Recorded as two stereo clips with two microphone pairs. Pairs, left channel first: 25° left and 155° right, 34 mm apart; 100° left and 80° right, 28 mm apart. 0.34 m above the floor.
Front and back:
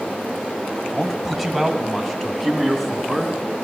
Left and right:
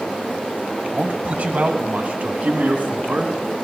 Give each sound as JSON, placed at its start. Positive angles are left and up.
{"t": 0.8, "sound": "a man speaking", "azimuth_deg": -70, "distance_m": 1.4}